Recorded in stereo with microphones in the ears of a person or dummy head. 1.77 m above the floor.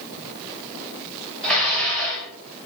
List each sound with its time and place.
1.4 s dishes clattering: 5° left (ahead or behind), 1.0 m